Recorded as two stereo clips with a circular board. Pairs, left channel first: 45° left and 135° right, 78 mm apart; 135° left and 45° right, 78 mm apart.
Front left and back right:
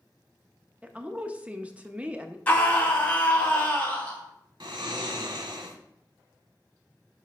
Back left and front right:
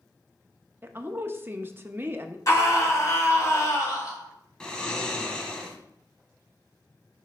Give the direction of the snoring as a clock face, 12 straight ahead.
5 o'clock.